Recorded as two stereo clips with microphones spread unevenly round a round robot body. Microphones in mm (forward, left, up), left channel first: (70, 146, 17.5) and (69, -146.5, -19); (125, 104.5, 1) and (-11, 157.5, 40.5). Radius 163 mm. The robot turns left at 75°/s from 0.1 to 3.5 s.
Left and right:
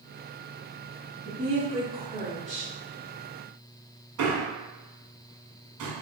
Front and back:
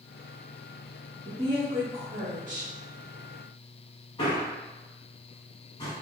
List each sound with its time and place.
1.2 s a woman speaking: 115° right, 0.9 m; by 2.7 s 140° left, 0.9 m
4.2 s a man speaking: 80° right, 1.4 m